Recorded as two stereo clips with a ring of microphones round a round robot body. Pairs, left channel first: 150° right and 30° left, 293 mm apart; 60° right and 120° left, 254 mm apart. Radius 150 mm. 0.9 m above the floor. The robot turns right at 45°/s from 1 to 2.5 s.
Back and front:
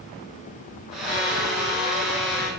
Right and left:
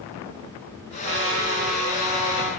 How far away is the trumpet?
About 1.6 m.